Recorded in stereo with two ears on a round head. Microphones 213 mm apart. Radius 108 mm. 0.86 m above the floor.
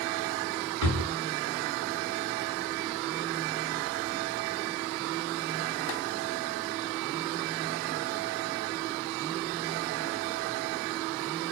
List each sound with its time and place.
0.8 s a drawer: 70° right (ahead or behind), 1.4 m